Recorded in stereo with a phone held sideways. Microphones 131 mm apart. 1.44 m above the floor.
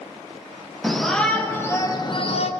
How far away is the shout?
About 2 m.